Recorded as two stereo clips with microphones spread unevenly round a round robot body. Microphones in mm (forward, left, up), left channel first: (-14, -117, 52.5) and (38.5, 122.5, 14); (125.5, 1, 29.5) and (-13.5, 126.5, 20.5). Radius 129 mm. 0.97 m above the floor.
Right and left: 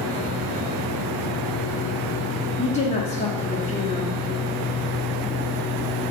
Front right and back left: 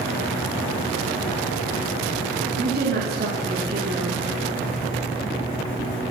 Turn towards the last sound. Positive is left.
turn(degrees=-170)